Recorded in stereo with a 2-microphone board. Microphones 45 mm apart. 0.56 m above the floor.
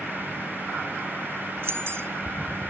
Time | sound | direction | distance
1.6 | keys jangling | 65° right (ahead or behind) | 1.2 m